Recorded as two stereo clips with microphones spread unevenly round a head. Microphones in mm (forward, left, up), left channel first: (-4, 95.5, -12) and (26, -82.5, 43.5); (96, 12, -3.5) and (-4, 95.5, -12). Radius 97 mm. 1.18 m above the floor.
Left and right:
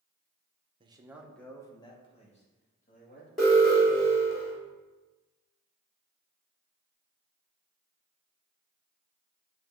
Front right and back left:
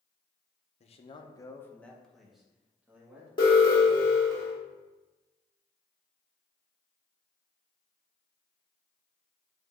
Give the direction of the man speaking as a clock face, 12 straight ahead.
12 o'clock.